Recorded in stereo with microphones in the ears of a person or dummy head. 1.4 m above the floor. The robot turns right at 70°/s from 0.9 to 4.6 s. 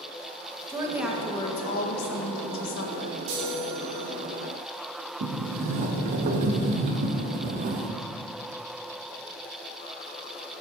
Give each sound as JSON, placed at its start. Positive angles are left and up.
{"t": 0.7, "sound": "a woman speaking", "azimuth_deg": -15, "distance_m": 1.5}
{"t": 3.3, "sound": "a chime", "azimuth_deg": -70, "distance_m": 2.5}
{"t": 5.2, "sound": "a sliding door", "side_deg": -45, "distance_m": 0.9}